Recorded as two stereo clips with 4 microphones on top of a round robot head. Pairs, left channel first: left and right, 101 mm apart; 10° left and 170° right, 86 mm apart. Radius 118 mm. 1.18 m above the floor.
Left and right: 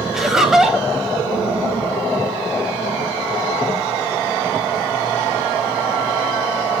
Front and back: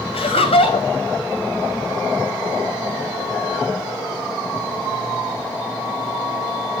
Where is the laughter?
Straight ahead, 3 m.